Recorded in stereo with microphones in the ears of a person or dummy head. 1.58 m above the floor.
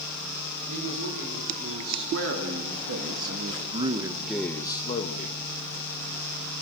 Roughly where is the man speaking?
Right.